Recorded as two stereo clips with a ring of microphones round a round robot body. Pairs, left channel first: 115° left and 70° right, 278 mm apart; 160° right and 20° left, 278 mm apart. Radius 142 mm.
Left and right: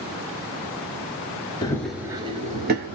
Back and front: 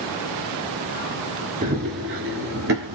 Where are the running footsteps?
50° left, 0.5 m; by 3.0 s 20° right, 0.9 m.